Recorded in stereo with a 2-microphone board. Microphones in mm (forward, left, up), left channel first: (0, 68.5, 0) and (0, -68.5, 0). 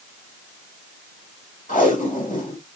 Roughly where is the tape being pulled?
Left.